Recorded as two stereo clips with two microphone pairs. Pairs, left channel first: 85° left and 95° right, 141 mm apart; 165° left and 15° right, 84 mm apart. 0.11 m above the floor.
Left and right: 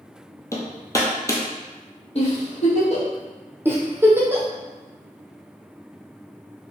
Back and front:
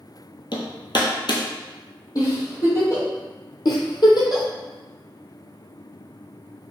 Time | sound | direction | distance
0.5 | hammering | 155° left | 0.8 m
2.1 | a giggle | 125° left | 1.8 m
3.6 | a giggle | 165° right | 1.0 m